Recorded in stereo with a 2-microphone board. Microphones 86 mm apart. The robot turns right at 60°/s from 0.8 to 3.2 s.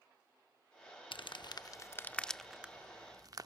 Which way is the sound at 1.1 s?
80° left.